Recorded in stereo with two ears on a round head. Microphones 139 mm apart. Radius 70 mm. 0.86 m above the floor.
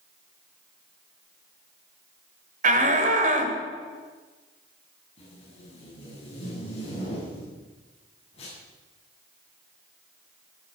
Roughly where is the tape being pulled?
Left.